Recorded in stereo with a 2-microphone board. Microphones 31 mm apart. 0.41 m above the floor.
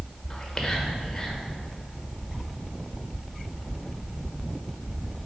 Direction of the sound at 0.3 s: 15° left (ahead or behind).